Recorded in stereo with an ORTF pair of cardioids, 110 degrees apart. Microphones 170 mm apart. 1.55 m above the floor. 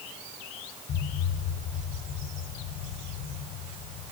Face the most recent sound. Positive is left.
turn(degrees=65)